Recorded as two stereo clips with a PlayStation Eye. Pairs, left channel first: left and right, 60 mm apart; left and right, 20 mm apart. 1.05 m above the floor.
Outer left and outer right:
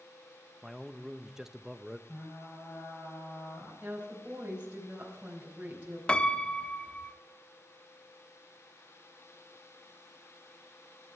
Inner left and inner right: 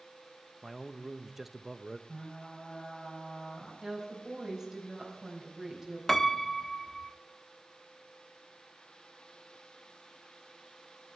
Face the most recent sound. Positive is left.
turn(degrees=15)  # may be behind; listen again after turning